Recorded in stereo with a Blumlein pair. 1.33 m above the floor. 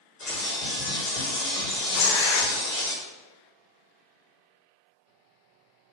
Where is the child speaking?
I don't hear a child speaking.